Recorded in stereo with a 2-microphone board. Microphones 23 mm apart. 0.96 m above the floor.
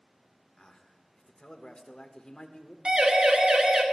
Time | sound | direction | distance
0.6 | a man speaking | 45° left (ahead or behind) | 1.2 m
2.9 | a siren | 50° right (ahead or behind) | 2 m